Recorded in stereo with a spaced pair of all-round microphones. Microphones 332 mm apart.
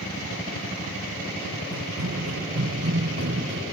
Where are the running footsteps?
45° right (ahead or behind); by 3.6 s 40° right (ahead or behind).